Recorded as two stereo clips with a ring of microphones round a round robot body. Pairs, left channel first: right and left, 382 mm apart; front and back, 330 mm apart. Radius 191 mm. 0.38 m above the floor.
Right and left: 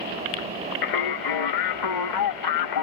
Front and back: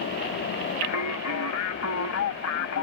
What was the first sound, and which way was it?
Singing, 50° right.